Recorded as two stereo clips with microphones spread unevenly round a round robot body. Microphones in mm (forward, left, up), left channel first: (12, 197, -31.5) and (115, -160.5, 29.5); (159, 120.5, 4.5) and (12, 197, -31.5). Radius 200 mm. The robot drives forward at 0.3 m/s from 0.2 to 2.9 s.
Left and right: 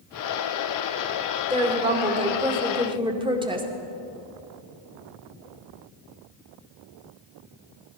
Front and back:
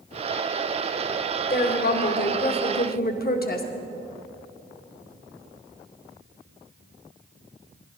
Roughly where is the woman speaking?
Ahead.